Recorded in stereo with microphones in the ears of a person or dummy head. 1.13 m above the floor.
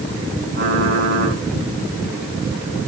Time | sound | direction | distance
0.6 | typing on a keyboard | 55° right (ahead or behind) | 8.5 m